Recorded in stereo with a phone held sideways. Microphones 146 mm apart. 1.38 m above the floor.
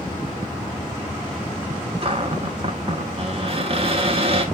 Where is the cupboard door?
40° right (ahead or behind), 1.3 m.